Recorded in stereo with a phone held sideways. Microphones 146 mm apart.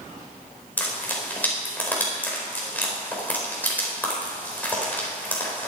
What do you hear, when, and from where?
0.8 s frying: 10° left (ahead or behind), 4 m